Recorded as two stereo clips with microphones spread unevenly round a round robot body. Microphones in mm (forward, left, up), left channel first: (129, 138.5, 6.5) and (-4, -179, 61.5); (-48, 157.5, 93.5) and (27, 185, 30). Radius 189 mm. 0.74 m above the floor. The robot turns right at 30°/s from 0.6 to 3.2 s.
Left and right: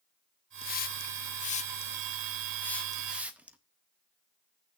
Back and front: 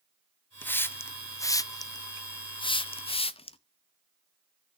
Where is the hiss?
70° left, 0.7 m; by 3.6 s 150° left, 0.7 m.